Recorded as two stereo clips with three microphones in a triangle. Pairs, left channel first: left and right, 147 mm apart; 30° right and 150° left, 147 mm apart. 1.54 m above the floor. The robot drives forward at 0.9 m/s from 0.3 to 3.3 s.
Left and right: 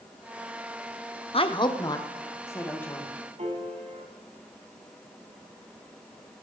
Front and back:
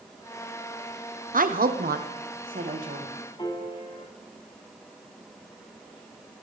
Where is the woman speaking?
135° left, 0.8 m; by 3.1 s 165° left, 2 m.